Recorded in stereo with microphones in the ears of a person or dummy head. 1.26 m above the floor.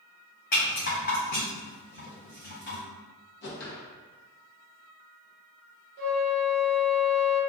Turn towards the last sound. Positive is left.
turn(degrees=-55)  # may be behind; listen again after turning